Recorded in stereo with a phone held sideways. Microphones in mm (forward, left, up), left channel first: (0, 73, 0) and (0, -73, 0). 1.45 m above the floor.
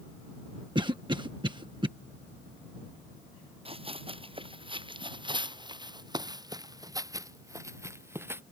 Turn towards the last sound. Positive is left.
turn(degrees=-15)  # may be behind; listen again after turning